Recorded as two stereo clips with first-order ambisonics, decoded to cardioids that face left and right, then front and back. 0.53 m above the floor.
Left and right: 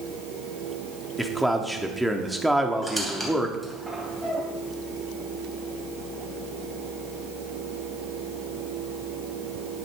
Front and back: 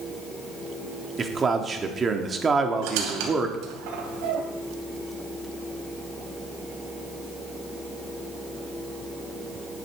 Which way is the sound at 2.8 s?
175° left.